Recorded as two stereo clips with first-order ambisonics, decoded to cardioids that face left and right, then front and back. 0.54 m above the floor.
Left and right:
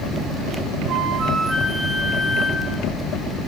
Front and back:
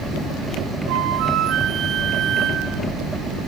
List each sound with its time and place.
0.9 s a flute: 145° right, 1.9 m